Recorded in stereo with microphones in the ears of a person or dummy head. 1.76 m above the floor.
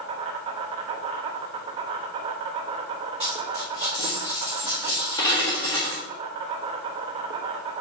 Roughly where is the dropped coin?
Left.